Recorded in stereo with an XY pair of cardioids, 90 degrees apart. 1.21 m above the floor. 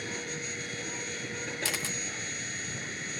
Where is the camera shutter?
40° left.